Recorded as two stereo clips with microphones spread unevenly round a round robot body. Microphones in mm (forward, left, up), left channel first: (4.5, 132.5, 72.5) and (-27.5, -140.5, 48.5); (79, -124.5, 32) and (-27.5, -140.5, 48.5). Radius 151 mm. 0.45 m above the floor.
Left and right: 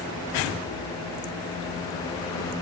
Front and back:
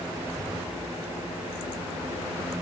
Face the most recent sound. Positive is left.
No sound to turn to.